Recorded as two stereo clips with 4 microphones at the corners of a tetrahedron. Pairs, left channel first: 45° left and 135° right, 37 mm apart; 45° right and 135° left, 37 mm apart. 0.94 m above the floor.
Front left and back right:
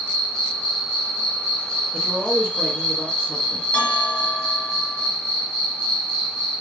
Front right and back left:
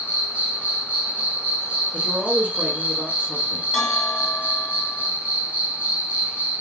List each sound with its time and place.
0.0 s an insect: 100° left, 1.2 m
1.9 s a man speaking: 95° left, 1.4 m
3.7 s a bell: 55° left, 2 m